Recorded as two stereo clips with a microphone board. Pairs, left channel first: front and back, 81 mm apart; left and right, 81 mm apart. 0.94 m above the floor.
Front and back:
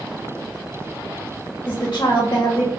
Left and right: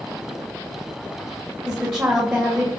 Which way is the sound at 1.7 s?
35° right.